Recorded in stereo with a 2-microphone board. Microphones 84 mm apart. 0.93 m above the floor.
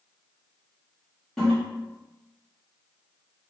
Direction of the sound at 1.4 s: 5° left (ahead or behind).